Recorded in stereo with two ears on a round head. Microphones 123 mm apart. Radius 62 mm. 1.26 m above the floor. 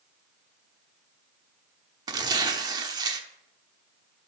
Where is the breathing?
No breathing in this recording.